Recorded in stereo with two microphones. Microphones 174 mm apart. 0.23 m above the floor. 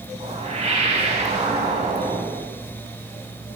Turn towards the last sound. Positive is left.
turn(degrees=-40)  # may be behind; listen again after turning